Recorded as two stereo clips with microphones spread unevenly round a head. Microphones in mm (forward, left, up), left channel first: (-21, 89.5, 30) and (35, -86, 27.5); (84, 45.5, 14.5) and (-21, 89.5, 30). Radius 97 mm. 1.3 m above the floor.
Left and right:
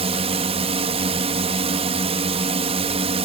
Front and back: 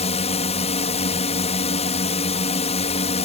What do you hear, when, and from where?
0.0 s a drone: 20° right